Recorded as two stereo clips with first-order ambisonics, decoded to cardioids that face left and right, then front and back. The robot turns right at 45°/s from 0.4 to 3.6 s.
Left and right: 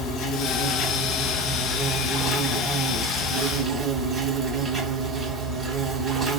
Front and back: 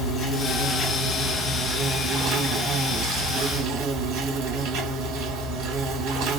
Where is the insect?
50° left, 1.4 m; by 6.4 s 165° right, 1.4 m.